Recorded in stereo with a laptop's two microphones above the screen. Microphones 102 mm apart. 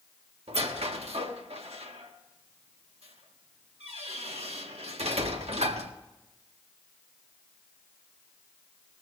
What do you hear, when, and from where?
0.5 s a squeak: 85° right, 1.5 m